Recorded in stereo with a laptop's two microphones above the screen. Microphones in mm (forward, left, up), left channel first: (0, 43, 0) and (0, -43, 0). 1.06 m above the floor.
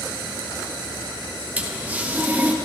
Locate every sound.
1.6 s a toilet flushing: 20° right (ahead or behind), 1.6 m